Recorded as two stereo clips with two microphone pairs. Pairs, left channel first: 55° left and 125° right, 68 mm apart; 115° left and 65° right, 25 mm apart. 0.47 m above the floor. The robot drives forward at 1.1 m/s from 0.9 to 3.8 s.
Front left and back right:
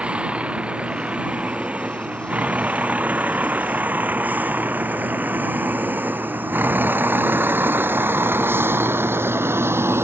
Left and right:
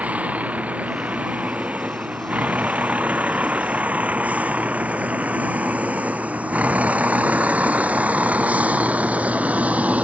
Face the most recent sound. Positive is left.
turn(degrees=-75)